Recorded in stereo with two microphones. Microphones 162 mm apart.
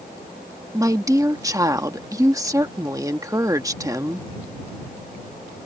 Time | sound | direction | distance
0.7 | a woman speaking | 20° right (ahead or behind) | ?